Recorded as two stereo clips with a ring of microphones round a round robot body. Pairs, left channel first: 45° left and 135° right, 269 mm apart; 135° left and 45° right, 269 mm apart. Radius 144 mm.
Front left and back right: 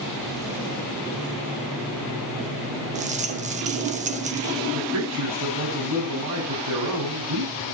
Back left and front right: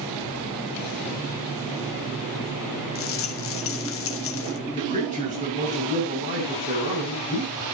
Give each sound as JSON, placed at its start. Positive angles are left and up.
{"t": 3.0, "sound": "a rattle", "azimuth_deg": 165, "distance_m": 1.2}
{"t": 4.7, "sound": "a man speaking", "azimuth_deg": -110, "distance_m": 7.0}